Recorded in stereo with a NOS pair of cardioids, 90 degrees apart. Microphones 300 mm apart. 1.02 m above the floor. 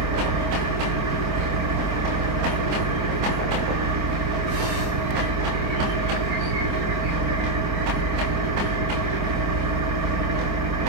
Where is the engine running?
65° right, 3 m.